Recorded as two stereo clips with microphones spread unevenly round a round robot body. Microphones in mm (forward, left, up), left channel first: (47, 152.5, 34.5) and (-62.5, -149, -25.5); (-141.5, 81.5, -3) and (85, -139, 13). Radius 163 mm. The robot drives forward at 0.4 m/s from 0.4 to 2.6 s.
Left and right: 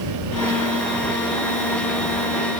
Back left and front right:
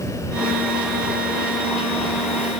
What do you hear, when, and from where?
Only background noise.